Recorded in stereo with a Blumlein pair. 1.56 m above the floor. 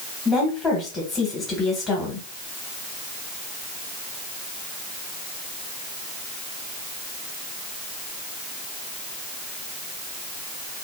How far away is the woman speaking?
About 1.4 m.